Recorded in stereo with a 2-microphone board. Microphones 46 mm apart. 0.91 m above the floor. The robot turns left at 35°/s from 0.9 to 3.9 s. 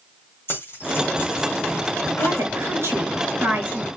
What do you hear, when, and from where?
0.5 s keys jangling: 55° left (ahead or behind), 1.4 m; by 2.5 s 70° left (ahead or behind), 1.4 m
2.2 s a woman speaking: 85° right, 4.5 m; by 3.9 s 145° right, 4.5 m